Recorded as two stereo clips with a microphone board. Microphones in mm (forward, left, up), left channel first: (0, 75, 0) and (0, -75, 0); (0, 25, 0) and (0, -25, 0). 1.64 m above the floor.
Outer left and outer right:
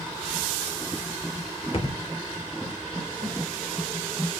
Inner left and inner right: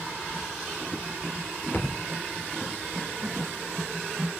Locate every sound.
1.7 s a thud: 40° left (ahead or behind), 2 m
3.2 s a snare drum: 35° right (ahead or behind), 10 m